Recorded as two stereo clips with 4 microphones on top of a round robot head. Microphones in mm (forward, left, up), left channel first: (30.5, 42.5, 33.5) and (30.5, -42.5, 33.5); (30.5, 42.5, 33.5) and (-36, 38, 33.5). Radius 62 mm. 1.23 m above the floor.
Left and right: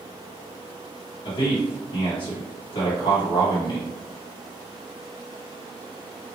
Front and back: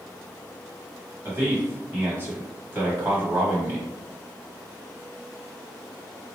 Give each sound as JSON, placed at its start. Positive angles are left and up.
{"t": 1.2, "sound": "a man speaking", "azimuth_deg": 130, "distance_m": 1.3}